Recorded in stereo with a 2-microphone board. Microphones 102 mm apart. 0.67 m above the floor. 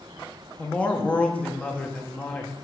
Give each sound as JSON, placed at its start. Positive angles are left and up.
{"t": 0.6, "sound": "a man speaking", "side_deg": 10, "distance_m": 0.8}